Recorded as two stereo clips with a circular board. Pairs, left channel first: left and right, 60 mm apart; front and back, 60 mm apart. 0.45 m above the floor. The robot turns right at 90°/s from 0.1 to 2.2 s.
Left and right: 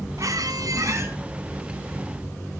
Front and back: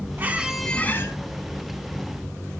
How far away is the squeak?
About 1.8 m.